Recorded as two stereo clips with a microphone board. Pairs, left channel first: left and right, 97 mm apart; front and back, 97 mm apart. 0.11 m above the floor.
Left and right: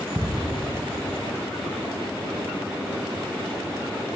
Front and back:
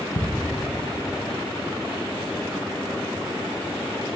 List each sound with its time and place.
0.1 s ticking: 30° right, 2 m